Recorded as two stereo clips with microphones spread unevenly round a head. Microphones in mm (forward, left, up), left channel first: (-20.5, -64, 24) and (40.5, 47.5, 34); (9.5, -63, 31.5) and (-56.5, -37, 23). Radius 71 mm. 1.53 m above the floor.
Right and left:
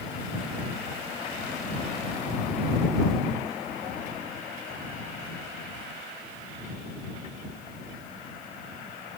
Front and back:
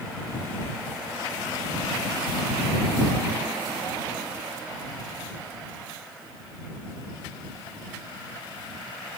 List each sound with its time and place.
Only background noise.